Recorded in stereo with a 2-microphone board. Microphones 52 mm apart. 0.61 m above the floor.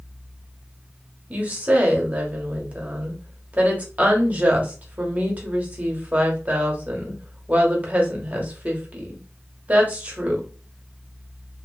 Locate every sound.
1.3 s a woman speaking: 30° right (ahead or behind), 1.0 m